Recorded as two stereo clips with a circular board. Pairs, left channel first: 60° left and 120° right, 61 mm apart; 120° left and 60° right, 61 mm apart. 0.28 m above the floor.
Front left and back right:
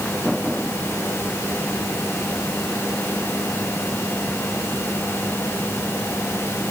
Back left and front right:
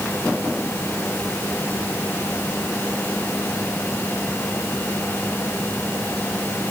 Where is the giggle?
No giggle in this recording.